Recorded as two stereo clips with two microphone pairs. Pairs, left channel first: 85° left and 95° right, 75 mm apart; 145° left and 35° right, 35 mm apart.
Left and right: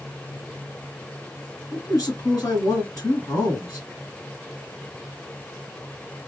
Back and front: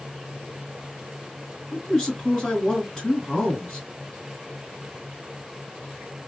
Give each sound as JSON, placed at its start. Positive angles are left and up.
{"t": 1.7, "sound": "a man speaking", "azimuth_deg": 85, "distance_m": 1.9}